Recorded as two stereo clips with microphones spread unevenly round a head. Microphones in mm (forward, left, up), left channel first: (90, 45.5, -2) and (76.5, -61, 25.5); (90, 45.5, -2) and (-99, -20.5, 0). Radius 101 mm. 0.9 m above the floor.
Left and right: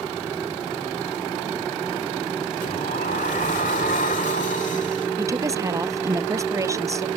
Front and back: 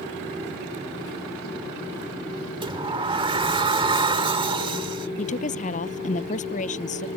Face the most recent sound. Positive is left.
turn(degrees=-35)